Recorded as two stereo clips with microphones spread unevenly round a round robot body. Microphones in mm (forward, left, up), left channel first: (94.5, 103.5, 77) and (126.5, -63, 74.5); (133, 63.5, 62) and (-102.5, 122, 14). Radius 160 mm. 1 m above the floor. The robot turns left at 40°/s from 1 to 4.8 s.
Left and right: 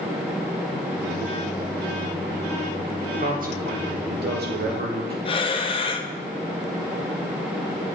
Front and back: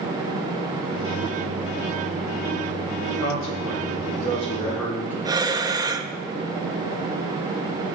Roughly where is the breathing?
Behind left.